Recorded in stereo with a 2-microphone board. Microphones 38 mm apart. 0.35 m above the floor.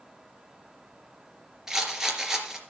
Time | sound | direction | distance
1.7 | a rattle | 10° right (ahead or behind) | 3 m